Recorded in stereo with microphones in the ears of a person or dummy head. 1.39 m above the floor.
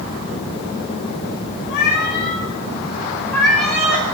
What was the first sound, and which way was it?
A cat meowing, 60° left (ahead or behind).